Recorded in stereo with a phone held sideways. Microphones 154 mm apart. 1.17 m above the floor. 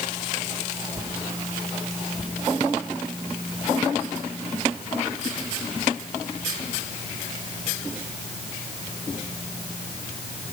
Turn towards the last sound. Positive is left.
No sound to turn to.